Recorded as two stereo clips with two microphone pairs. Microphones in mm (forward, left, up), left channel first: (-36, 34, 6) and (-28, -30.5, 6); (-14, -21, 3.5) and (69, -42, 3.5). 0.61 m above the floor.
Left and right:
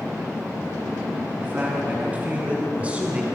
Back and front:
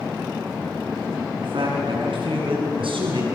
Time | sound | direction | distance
1.4 | a man speaking | 20° right | 6.5 m